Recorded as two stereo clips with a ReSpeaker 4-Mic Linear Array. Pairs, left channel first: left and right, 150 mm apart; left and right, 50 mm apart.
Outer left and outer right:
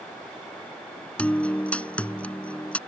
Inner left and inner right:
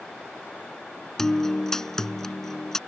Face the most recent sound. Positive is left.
turn(degrees=10)  # may be behind; listen again after turning